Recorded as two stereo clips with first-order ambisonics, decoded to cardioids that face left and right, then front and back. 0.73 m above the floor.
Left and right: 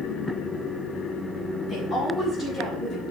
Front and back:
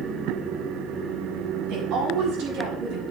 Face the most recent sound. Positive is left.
turn(degrees=175)